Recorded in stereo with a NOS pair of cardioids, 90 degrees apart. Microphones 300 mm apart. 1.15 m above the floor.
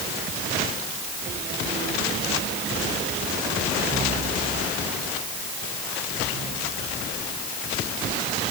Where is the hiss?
I don't hear a hiss.